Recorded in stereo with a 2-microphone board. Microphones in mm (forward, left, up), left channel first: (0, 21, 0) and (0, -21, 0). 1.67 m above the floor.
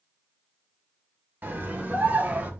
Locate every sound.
1.4 s a scream: 50° right (ahead or behind), 3 m; by 2.5 s 40° right (ahead or behind), 2.5 m